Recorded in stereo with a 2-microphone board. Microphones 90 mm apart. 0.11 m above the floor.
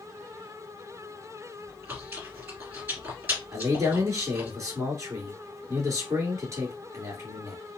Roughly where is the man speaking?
Right.